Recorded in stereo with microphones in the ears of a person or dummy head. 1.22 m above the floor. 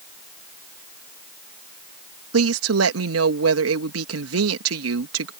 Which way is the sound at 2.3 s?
75° right (ahead or behind).